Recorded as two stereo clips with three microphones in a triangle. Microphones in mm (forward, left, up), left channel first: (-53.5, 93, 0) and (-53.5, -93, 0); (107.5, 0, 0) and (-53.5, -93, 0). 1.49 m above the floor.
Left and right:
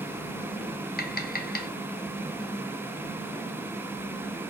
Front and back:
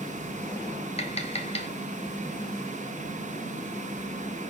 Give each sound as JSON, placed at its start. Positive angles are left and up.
{"t": 1.0, "sound": "tapping", "azimuth_deg": 75, "distance_m": 0.5}